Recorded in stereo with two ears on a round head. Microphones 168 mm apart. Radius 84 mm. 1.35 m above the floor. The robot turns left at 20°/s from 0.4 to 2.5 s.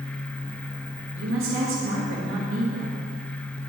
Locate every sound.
1.1 s a woman speaking: 70° right (ahead or behind), 2 m; by 3.0 s 75° right (ahead or behind), 2 m